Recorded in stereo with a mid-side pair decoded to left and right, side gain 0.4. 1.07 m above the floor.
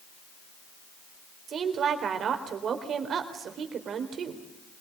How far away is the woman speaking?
About 4 m.